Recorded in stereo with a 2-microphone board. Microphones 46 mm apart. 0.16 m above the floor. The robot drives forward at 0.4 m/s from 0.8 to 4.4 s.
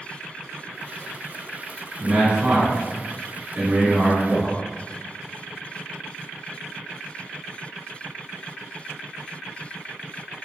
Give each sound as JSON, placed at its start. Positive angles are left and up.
{"t": 2.0, "sound": "a man speaking", "side_deg": -25, "distance_m": 1.3}